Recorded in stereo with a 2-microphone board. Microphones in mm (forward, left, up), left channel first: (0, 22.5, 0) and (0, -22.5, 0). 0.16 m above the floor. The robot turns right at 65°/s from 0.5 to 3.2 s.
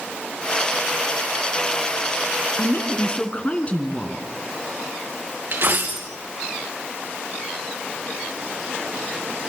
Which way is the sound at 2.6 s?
95° left.